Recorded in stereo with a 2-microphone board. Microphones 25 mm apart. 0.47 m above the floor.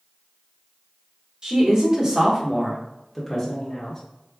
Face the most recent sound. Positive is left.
turn(degrees=15)  # may be behind; listen again after turning